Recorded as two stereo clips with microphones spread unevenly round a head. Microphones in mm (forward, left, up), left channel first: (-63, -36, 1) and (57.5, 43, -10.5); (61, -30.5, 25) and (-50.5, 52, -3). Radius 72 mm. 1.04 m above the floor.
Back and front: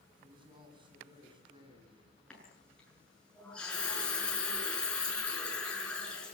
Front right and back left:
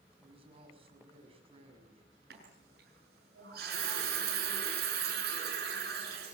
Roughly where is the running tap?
Behind left.